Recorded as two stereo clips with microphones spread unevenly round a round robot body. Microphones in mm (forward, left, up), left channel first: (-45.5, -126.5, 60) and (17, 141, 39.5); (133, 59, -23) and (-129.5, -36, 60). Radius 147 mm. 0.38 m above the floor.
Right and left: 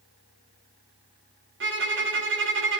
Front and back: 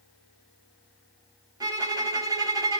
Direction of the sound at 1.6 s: 115° left.